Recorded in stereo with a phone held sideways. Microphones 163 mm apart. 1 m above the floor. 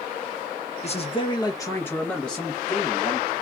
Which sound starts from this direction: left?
A man speaking, at 0.8 s.